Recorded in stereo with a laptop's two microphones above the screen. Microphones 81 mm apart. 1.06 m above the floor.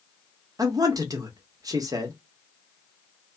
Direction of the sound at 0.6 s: 50° right (ahead or behind).